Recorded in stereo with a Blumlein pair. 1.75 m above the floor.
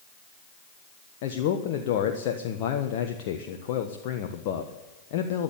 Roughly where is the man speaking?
Ahead left.